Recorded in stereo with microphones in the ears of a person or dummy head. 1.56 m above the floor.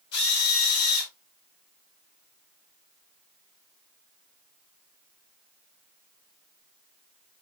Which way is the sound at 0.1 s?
60° left (ahead or behind).